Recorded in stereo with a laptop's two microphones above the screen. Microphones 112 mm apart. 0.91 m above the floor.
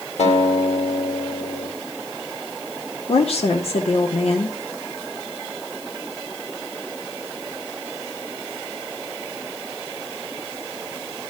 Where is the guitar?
85° left, 2.5 m.